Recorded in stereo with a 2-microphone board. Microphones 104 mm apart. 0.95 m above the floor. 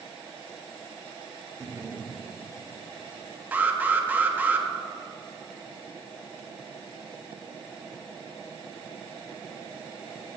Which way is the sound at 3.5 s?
15° right (ahead or behind).